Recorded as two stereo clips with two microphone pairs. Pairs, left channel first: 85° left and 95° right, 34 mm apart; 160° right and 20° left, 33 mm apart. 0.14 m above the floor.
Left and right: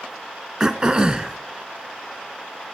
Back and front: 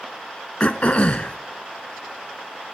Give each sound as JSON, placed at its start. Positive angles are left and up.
{"t": 0.6, "sound": "throat clearing", "azimuth_deg": -145, "distance_m": 0.6}